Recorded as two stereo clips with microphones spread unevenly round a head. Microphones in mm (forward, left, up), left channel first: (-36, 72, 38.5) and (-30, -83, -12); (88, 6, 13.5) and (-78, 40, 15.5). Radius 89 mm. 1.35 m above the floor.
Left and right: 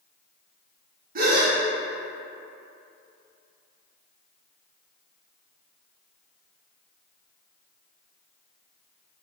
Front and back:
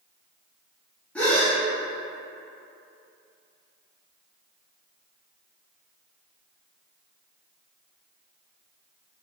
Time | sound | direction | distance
1.1 | a gasp | 95° right | 0.8 m